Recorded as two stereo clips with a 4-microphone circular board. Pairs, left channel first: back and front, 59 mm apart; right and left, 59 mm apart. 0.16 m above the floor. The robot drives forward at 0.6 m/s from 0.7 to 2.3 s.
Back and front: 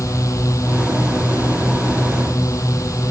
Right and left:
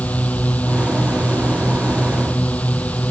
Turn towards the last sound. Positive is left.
turn(degrees=-155)